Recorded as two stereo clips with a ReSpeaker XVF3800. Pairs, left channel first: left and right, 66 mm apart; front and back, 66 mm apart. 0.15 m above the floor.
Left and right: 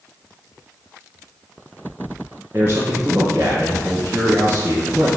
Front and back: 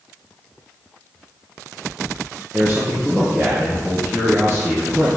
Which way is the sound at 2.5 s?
135° right.